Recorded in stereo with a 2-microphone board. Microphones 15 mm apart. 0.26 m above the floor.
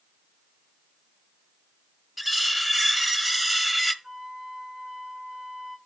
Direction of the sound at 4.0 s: 35° right (ahead or behind).